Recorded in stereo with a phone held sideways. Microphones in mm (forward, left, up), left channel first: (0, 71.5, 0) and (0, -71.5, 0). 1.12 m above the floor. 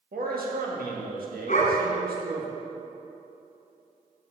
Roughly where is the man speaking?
Right.